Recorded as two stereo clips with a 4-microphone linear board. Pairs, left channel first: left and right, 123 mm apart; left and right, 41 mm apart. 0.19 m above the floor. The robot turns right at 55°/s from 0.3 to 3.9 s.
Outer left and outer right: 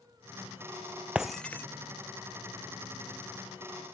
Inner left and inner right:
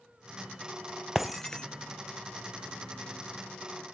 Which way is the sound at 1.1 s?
10° right (ahead or behind).